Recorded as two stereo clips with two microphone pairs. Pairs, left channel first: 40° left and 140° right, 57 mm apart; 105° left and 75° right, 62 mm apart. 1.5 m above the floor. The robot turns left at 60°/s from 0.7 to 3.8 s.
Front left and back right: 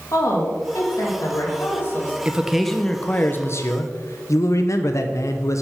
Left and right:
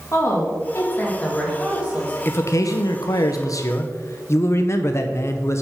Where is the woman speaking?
60° left, 1.8 m; by 2.1 s 25° right, 1.8 m.